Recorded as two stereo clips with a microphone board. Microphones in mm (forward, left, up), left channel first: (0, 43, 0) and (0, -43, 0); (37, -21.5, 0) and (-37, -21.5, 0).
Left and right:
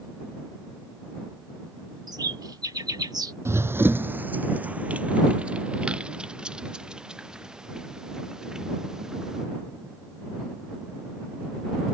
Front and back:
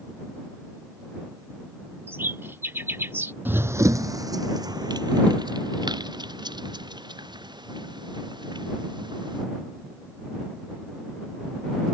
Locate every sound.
2.1 s a bird: 125° right
3.5 s running footsteps: 125° right; by 9.5 s 170° right